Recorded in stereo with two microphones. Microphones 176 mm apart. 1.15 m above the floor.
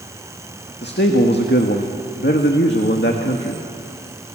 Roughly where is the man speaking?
Left.